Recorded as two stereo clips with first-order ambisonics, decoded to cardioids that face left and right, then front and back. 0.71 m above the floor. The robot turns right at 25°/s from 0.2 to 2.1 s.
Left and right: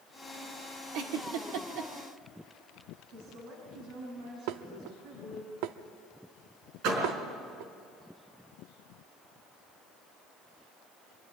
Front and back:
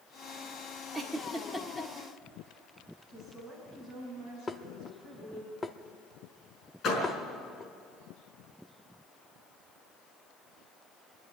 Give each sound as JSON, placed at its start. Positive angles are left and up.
{"t": 0.9, "sound": "a giggle", "azimuth_deg": -100, "distance_m": 1.7}
{"t": 3.1, "sound": "a woman speaking", "azimuth_deg": -65, "distance_m": 5.0}
{"t": 4.5, "sound": "dishes clattering", "azimuth_deg": -80, "distance_m": 0.7}
{"t": 6.8, "sound": "a door slam", "azimuth_deg": -55, "distance_m": 5.0}